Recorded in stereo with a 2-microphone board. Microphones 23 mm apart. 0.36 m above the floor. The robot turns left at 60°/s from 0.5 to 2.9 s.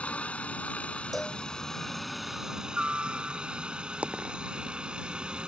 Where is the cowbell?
Centre (ahead or behind); by 1.4 s 20° left (ahead or behind).